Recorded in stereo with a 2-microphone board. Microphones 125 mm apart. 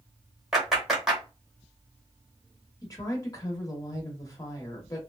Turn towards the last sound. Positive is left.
turn(degrees=30)  # may be behind; listen again after turning